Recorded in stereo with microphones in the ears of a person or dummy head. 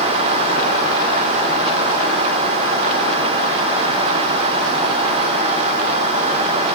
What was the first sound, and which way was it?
Only background noise.